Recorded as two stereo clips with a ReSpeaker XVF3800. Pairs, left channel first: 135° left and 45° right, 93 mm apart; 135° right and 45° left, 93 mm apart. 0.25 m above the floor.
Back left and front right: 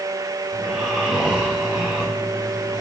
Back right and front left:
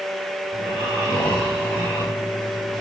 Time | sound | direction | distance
0.5 | snoring | 130° right | 7 m